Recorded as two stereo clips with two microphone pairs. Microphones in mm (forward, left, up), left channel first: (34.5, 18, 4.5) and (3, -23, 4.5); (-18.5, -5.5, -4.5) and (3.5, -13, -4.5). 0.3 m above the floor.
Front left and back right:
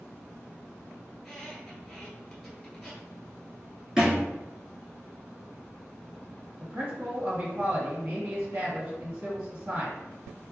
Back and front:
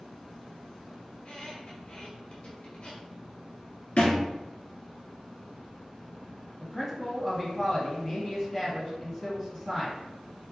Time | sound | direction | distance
1.1 | a squeak | 135° left | 1.6 m
4.0 | a thud | 155° left | 1.6 m
6.6 | a man speaking | 140° right | 1.4 m